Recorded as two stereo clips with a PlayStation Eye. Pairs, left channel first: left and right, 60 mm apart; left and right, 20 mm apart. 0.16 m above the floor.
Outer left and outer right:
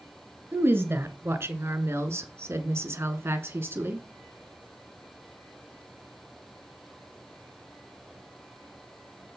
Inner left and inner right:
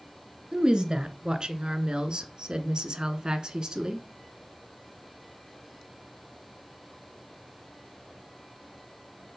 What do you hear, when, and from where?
0.5 s a woman speaking: 40° right (ahead or behind), 1.9 m; by 4.0 s 35° right (ahead or behind), 1.7 m